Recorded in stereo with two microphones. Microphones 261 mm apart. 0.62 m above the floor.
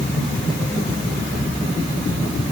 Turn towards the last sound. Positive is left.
No sound to turn to.